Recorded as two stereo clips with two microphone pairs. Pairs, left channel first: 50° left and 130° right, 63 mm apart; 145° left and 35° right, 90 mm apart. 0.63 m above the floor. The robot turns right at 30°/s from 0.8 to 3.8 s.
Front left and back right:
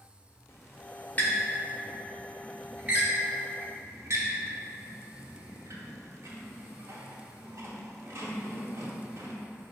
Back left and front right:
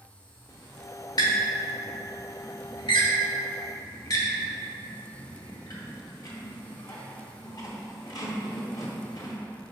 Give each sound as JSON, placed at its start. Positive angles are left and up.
{"t": 0.5, "sound": "a squeak", "azimuth_deg": 100, "distance_m": 0.8}